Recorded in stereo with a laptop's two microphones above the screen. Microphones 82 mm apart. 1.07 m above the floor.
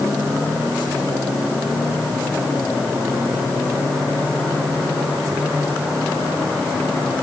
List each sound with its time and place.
Only background noise.